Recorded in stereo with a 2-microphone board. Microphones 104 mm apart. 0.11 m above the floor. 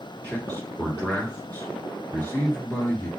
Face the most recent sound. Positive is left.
turn(degrees=15)  # may be behind; listen again after turning